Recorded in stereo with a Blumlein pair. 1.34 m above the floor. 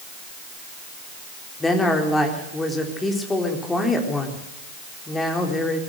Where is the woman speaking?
10° left, 4 m.